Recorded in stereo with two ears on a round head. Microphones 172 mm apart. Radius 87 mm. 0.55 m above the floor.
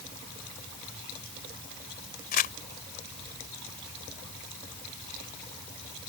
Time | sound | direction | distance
2.3 | crumpling | 45° left (ahead or behind) | ?